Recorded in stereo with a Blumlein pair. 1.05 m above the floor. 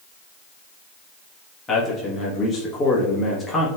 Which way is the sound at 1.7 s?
20° left.